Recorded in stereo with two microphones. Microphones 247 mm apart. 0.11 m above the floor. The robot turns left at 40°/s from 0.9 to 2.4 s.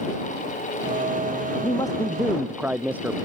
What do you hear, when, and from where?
1.6 s a man speaking: 25° left; by 3.1 s 5° right